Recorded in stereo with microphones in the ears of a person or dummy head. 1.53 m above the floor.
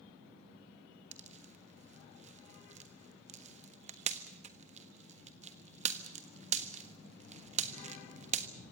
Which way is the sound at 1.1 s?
40° right (ahead or behind).